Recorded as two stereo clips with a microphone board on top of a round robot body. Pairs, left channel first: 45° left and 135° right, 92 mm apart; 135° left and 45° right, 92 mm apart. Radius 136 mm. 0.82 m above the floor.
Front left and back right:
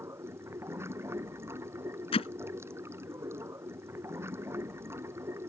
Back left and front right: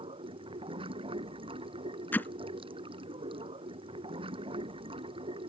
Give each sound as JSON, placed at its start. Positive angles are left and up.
{"t": 0.0, "sound": "running water", "azimuth_deg": -70}
{"t": 2.1, "sound": "hammering", "azimuth_deg": 65}